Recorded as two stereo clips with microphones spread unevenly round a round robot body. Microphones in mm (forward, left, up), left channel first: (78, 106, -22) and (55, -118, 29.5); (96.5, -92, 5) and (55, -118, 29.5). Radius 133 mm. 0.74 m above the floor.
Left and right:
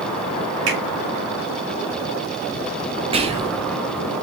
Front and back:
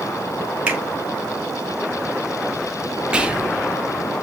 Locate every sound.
0.7 s a finger snap: 80° right, 3 m
3.1 s whispering: 35° right, 0.8 m